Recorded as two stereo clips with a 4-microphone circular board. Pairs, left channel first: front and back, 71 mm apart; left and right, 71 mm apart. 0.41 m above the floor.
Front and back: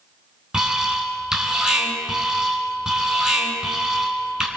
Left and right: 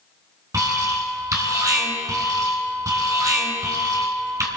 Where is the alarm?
100° right, 3 m.